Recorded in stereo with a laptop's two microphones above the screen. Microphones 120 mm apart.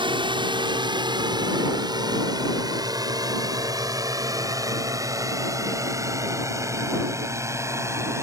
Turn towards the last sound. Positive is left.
turn(degrees=-25)  # may be behind; listen again after turning